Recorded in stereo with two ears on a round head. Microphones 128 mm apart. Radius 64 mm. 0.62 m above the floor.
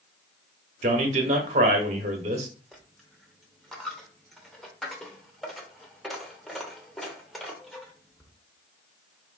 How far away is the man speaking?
About 1.0 m.